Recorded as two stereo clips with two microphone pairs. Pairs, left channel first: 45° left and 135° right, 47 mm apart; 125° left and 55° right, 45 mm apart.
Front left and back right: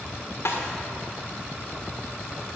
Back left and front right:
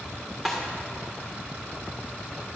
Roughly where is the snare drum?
Ahead left.